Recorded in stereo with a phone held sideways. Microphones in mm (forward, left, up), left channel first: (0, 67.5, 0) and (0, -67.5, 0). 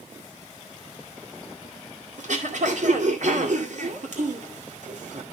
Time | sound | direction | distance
2.2 | throat clearing | 65° right (ahead or behind) | 2 m